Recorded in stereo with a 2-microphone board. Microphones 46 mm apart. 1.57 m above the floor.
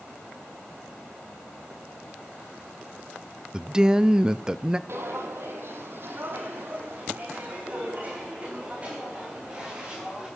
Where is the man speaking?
15° right (ahead or behind), 0.6 m.